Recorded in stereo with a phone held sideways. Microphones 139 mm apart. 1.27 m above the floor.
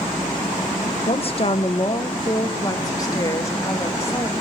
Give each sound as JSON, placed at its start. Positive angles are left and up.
{"t": 1.1, "sound": "a woman speaking", "side_deg": 50, "distance_m": 1.0}